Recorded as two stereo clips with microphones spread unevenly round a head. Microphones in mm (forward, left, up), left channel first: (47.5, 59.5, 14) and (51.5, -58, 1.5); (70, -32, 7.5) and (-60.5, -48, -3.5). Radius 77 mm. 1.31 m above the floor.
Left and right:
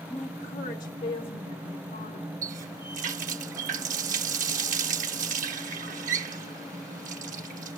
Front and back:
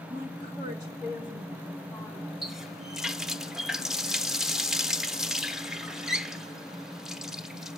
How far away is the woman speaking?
About 1.3 m.